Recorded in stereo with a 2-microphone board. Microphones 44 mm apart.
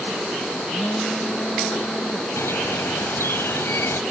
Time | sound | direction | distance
0.7 | a phone buzzing | 30° left (ahead or behind) | ?
2.4 | a bird | 85° left | ?